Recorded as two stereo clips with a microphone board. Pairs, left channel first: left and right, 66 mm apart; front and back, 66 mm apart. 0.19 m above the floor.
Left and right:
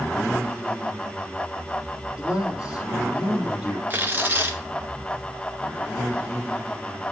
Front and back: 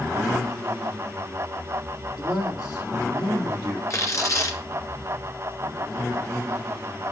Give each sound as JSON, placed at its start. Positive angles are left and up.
{"t": 2.2, "sound": "a man speaking", "azimuth_deg": -15, "distance_m": 5.5}
{"t": 3.9, "sound": "tearing paper", "azimuth_deg": -30, "distance_m": 1.9}